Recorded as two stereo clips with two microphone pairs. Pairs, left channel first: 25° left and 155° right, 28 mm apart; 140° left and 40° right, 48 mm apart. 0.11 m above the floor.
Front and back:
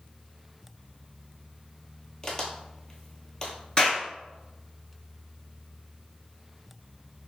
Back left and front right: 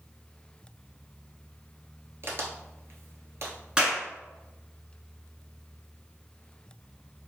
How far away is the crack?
About 0.8 m.